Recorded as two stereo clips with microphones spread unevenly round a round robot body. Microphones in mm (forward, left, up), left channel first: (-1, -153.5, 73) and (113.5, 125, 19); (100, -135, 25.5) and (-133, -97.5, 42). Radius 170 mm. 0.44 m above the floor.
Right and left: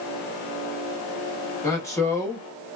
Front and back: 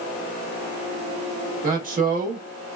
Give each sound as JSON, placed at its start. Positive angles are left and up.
{"t": 1.6, "sound": "a man speaking", "azimuth_deg": 160, "distance_m": 0.8}